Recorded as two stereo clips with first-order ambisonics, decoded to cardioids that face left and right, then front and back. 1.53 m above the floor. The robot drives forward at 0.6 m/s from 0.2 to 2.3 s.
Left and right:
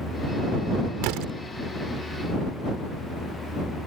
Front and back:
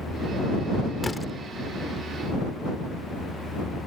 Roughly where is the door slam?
Right.